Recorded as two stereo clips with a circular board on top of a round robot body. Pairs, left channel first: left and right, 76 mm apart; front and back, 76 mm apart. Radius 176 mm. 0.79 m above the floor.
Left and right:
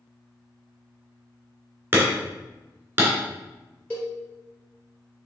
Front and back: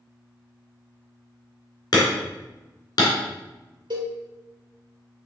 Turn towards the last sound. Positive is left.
turn(degrees=160)